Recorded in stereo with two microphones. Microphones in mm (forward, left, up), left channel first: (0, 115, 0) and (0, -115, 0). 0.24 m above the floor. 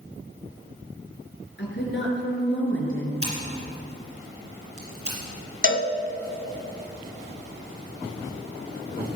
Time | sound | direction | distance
1.6 | a woman speaking | 50° left (ahead or behind) | 3.5 m
3.2 | scissors | 80° right | 4.5 m
5.6 | a cowbell | 55° left (ahead or behind) | 0.9 m